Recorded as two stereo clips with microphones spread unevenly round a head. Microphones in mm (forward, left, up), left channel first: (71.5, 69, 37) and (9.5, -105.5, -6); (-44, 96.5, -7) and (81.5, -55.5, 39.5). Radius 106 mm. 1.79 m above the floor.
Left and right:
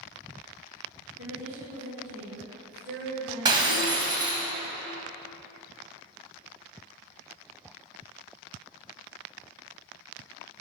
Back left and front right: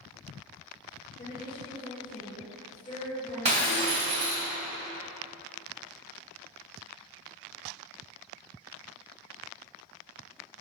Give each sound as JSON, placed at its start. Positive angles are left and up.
{"t": 1.2, "sound": "a woman speaking", "azimuth_deg": -155, "distance_m": 1.9}
{"t": 3.5, "sound": "breaking glass", "azimuth_deg": -35, "distance_m": 2.0}